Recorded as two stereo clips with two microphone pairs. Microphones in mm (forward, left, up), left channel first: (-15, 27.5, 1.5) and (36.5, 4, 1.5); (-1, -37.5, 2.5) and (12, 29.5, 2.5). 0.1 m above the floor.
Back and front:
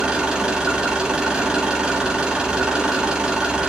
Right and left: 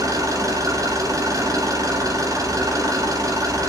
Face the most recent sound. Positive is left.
turn(degrees=55)